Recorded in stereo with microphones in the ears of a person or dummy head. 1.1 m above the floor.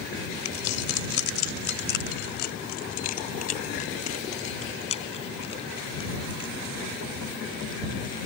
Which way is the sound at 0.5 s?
90° left.